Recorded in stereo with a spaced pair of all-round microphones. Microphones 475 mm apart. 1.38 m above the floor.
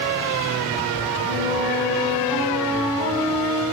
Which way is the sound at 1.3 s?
45° left (ahead or behind).